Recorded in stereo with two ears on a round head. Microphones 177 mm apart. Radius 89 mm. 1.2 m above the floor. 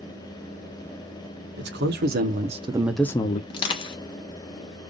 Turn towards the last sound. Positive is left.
turn(degrees=25)  # may be behind; listen again after turning